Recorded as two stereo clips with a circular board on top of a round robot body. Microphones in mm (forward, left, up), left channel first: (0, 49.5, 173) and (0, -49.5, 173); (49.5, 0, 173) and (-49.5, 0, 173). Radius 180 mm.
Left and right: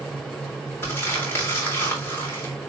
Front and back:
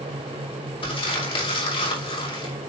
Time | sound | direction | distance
0.8 | crumpling | 20° left | 3.5 m